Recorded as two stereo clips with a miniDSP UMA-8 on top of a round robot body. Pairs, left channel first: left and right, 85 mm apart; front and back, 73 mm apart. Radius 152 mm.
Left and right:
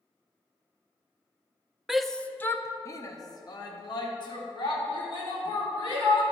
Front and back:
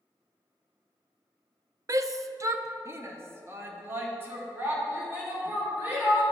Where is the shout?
175° right, 0.7 m; by 6.2 s 115° left, 3 m.